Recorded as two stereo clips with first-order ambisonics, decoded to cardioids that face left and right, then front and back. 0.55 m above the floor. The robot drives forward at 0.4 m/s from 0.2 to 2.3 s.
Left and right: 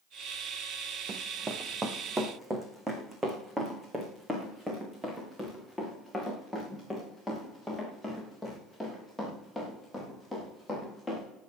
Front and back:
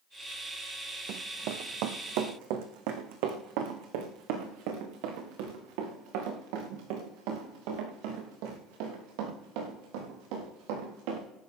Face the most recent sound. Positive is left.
turn(degrees=180)